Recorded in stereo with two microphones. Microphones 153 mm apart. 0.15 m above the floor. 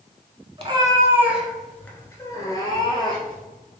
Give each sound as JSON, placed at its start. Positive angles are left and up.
{"t": 0.6, "sound": "a cat meowing", "side_deg": -40, "distance_m": 0.7}